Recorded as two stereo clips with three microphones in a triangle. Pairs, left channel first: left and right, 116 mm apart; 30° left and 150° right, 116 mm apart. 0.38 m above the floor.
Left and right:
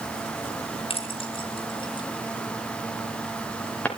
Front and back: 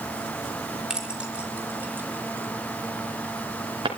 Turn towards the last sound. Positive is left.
turn(degrees=170)